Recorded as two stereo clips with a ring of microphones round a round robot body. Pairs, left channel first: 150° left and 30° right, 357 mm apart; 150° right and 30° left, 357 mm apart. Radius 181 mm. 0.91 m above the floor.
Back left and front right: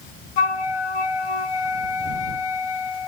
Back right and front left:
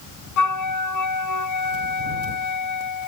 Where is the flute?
170° left.